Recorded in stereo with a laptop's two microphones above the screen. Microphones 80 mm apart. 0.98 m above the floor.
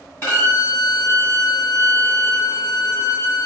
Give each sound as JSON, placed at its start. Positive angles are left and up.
{"t": 0.2, "sound": "a violin", "side_deg": 30, "distance_m": 1.5}